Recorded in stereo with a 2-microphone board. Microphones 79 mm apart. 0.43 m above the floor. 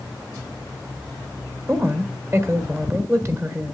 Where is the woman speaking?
35° right (ahead or behind), 1.6 m.